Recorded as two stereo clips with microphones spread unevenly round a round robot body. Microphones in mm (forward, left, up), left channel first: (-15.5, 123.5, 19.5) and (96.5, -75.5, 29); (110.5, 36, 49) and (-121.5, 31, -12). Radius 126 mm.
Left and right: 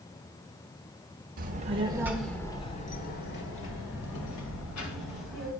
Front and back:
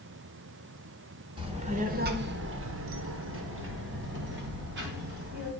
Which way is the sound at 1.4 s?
115° right.